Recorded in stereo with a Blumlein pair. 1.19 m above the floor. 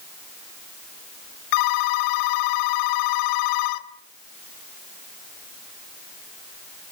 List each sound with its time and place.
1.5 s a phone ringing: 45° left, 1.5 m